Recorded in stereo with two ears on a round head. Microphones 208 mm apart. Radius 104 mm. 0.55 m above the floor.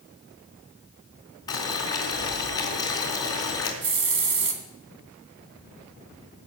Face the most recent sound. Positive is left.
turn(degrees=-55)  # may be behind; listen again after turning